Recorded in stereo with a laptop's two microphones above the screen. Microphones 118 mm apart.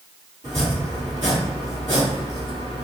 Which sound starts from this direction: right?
Chopping, at 0.4 s.